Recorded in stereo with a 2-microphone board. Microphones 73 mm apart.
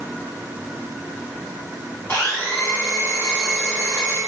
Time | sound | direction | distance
2.1 | a blender | 40° left (ahead or behind) | 1.5 m